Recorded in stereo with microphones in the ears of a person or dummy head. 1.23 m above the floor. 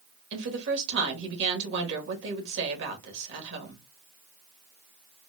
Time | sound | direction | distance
0.3 | a woman speaking | 65° right (ahead or behind) | 1.7 m